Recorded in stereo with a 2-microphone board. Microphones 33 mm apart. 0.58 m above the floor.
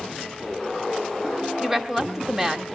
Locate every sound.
1.6 s a woman speaking: 15° right (ahead or behind), 1.1 m